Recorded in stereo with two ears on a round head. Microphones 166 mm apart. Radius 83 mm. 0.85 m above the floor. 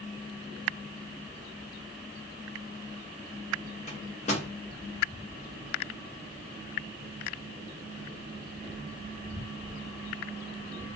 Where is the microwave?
35° left (ahead or behind), 0.8 m.